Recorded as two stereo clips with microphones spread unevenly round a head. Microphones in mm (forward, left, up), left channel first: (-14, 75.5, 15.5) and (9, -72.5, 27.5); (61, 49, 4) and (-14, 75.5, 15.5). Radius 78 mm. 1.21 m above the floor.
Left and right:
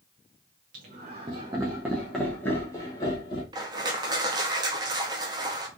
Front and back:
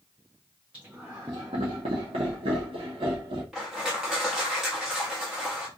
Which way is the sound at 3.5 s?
125° right.